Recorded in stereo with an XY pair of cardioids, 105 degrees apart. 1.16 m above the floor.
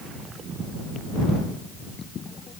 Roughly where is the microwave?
I don't hear a microwave.